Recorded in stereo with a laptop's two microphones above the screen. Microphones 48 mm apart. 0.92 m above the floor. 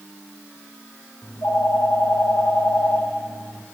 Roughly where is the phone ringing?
Left.